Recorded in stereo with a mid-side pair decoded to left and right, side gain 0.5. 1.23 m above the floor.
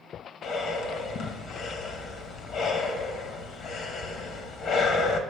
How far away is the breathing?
About 1.1 m.